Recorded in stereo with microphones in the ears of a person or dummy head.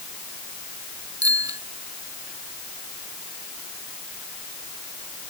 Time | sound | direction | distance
1.2 | a bicycle bell | 20° right (ahead or behind) | ?